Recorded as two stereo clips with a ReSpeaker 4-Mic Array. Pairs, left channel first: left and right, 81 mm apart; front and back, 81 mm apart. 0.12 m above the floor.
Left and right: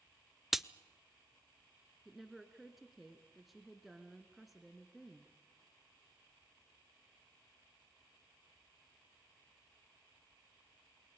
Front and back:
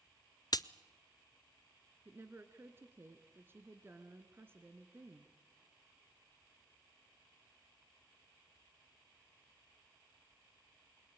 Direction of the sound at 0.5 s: 5° right.